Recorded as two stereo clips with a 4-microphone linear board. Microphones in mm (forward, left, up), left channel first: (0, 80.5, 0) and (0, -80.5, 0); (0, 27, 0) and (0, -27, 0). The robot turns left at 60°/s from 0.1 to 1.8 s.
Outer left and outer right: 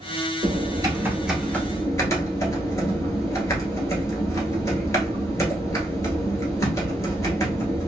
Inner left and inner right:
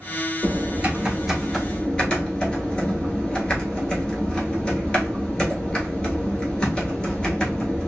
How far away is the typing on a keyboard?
About 1.1 m.